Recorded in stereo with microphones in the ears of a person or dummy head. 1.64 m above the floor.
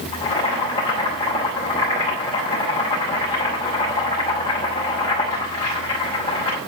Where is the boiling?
30° left (ahead or behind), 5 m.